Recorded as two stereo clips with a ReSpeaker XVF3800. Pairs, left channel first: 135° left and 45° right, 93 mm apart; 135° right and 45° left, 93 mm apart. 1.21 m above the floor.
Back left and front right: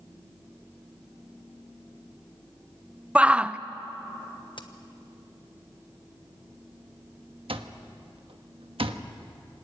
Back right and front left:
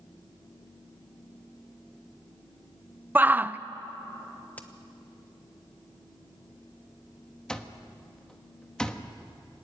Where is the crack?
150° left, 1.3 m.